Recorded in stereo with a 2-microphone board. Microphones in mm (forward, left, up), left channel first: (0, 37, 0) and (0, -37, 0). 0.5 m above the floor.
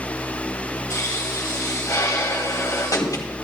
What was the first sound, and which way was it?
A pop, 50° left (ahead or behind).